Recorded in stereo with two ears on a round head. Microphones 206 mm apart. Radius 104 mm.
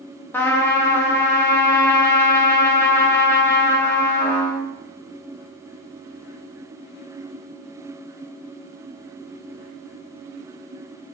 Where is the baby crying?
I don't hear a baby crying.